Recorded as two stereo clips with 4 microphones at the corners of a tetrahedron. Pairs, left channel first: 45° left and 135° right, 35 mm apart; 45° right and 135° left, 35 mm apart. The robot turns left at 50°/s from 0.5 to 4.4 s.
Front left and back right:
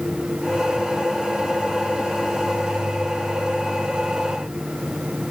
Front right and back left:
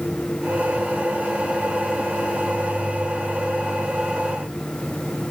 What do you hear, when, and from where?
Only background noise.